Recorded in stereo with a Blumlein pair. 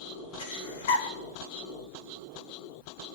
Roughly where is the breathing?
Ahead left.